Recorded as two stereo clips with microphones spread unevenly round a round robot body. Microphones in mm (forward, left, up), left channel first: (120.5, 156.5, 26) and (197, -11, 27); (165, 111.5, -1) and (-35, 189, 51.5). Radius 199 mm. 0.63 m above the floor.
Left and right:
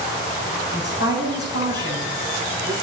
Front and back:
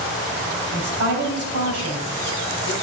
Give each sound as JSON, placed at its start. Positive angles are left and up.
{"t": 0.7, "sound": "a woman speaking", "azimuth_deg": 165, "distance_m": 4.0}